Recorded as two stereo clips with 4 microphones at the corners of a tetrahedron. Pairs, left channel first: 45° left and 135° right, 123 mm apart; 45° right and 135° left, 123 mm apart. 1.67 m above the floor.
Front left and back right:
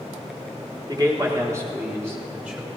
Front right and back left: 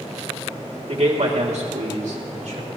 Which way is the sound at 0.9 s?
170° left.